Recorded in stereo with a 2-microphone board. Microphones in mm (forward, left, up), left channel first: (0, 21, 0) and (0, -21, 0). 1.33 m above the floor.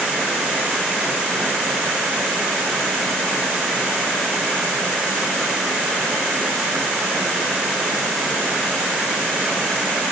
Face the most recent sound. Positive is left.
No sound to turn to.